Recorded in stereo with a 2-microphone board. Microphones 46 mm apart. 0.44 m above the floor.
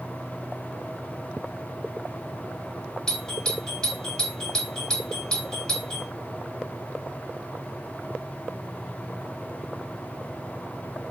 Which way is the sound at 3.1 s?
15° left (ahead or behind).